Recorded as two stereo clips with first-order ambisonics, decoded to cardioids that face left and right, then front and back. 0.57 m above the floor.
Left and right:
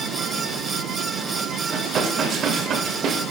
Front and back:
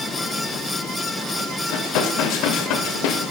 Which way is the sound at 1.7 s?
30° right.